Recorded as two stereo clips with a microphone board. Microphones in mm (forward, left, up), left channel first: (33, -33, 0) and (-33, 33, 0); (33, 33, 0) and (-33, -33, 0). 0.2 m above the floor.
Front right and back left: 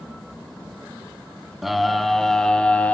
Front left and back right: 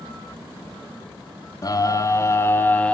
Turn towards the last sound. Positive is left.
turn(degrees=-5)